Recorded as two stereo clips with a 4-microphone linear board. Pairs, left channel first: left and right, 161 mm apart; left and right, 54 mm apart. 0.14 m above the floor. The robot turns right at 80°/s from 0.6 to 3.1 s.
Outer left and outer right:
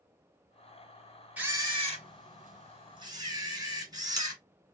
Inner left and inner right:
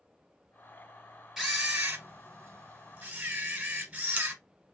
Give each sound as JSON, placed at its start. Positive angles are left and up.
{"t": 1.4, "sound": "a camera shutter", "azimuth_deg": -170, "distance_m": 2.0}